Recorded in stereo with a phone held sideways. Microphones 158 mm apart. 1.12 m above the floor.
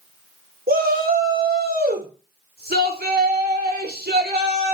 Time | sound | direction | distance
0.7 | a shout | 70° right (ahead or behind) | 3.5 m